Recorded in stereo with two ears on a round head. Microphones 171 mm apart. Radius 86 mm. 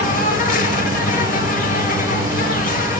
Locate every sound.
0.0 s an insect: 45° left (ahead or behind), 1.0 m